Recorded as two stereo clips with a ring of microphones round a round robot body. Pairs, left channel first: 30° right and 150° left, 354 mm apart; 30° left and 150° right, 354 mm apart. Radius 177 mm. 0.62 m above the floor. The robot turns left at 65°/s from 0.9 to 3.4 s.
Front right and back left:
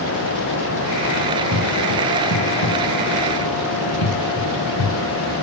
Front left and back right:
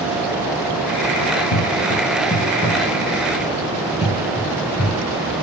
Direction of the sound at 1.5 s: 15° left.